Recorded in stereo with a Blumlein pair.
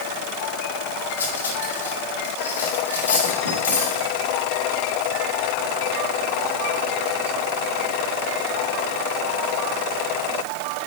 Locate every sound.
1.2 s cutlery clinking: 70° left, 3 m